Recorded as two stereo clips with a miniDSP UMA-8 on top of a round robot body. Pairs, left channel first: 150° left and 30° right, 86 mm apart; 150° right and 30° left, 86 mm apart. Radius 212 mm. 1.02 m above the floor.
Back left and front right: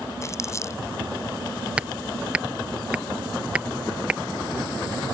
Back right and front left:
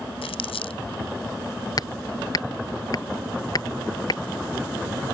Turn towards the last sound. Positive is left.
turn(degrees=-105)